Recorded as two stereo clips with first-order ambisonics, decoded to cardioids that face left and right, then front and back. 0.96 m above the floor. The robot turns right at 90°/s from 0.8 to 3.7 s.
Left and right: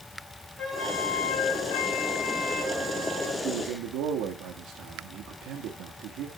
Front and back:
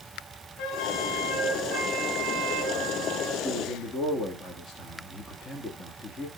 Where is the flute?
20° left, 2 m; by 3.3 s 110° right, 2 m.